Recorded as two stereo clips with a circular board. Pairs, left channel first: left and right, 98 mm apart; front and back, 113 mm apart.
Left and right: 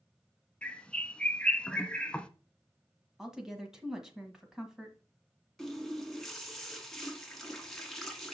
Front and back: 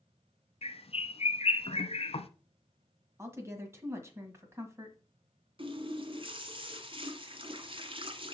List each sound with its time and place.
0.6 s a bird: 10° left, 0.7 m
3.2 s a woman speaking: 170° right, 1.5 m
5.6 s a running tap: 175° left, 1.3 m